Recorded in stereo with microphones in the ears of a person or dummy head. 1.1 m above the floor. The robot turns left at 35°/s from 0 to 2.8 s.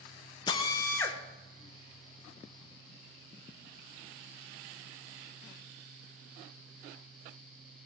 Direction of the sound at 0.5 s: 25° left (ahead or behind).